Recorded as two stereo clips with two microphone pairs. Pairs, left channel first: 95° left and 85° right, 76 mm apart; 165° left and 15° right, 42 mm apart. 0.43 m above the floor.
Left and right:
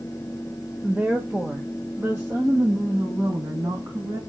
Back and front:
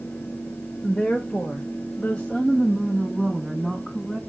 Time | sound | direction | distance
0.8 | a woman speaking | 145° right | 1.5 m